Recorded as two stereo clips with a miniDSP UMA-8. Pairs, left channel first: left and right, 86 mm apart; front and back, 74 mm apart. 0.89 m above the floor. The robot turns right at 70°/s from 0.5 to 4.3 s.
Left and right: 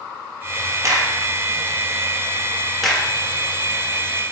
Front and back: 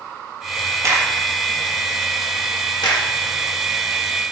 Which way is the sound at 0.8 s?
140° right.